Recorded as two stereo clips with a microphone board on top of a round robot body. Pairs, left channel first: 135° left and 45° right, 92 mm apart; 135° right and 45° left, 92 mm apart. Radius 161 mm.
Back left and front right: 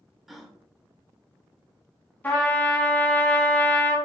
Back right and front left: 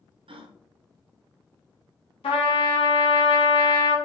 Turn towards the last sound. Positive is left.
turn(degrees=-155)